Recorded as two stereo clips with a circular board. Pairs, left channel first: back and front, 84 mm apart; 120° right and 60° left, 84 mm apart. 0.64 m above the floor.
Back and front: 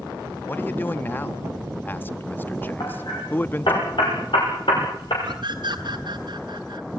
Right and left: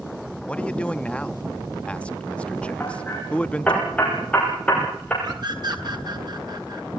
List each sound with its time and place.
0.5 s a man speaking: 175° right, 0.6 m
2.8 s hammering: 165° left, 6 m
5.2 s a scream: 25° left, 4 m